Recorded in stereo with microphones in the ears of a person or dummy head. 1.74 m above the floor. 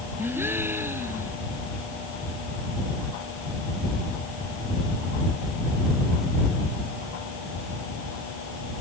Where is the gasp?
10° right (ahead or behind).